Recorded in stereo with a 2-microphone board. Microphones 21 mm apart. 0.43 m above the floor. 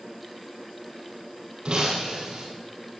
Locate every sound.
1.6 s breaking glass: 50° right (ahead or behind), 5 m